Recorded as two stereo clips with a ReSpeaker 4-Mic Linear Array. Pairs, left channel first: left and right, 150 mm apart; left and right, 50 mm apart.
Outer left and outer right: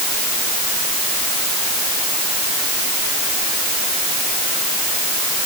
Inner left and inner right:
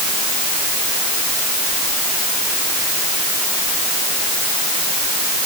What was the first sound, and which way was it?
Only background noise.